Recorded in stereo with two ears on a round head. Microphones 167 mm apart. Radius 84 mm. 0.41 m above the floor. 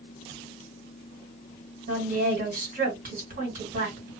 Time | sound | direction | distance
1.9 | a woman speaking | 50° right (ahead or behind) | 1.9 m